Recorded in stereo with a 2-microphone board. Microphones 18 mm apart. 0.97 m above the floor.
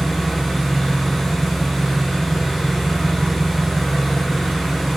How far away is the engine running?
About 1.1 m.